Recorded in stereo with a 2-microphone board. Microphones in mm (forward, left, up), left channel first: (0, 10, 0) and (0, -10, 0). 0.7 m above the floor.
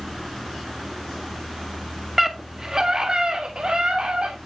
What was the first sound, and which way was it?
A scream, 15° right (ahead or behind).